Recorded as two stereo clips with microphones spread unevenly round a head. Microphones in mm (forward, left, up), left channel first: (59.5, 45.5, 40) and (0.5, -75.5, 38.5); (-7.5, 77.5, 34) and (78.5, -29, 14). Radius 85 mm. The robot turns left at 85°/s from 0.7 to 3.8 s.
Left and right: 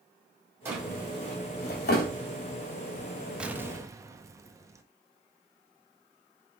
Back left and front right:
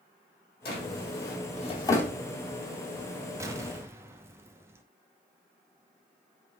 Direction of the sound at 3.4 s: 40° right.